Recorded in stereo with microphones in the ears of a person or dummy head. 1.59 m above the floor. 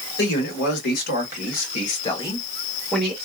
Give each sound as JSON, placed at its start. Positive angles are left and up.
{"t": 0.2, "sound": "a man speaking", "side_deg": 70, "distance_m": 1.6}